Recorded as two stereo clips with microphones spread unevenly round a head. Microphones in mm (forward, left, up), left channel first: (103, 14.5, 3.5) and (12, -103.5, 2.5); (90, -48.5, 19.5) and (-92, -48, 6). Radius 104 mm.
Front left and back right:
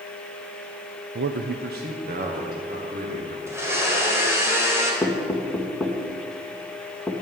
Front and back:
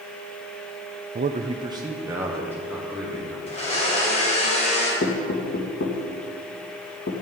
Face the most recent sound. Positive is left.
turn(degrees=-30)